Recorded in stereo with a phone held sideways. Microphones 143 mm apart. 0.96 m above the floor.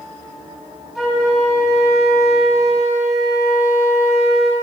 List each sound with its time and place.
0.9 s a flute: centre (ahead or behind), 1.2 m